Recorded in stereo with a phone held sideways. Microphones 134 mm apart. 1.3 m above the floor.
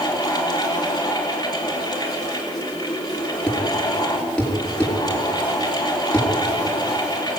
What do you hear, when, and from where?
0.0 s a fan: 30° left (ahead or behind), 3.5 m
3.5 s a thud: 5° left (ahead or behind), 4.5 m